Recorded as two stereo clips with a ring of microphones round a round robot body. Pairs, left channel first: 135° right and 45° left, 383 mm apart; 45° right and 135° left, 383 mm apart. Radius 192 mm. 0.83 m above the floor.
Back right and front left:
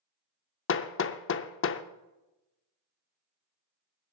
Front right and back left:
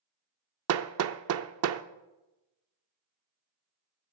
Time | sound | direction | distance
0.7 | hammering | 175° left | 0.5 m